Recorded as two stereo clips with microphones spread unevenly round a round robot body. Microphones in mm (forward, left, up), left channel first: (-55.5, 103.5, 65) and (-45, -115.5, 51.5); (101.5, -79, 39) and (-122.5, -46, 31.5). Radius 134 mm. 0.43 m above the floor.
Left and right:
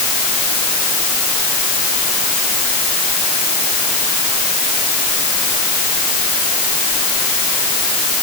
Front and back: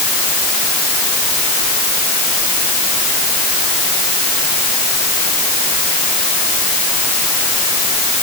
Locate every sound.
Only background noise.